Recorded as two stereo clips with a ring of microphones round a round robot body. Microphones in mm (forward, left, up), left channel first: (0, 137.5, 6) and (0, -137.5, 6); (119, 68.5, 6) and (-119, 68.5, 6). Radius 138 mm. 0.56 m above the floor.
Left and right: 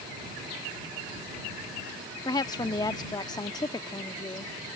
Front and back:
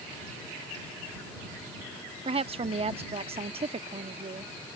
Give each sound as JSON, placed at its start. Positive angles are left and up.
{"t": 2.2, "sound": "a woman speaking", "azimuth_deg": 150}